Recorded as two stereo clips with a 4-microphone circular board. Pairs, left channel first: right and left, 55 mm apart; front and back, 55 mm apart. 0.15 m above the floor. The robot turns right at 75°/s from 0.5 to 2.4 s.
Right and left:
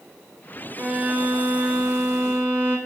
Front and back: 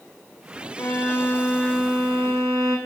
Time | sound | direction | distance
0.8 | a violin | 20° left | 1.5 m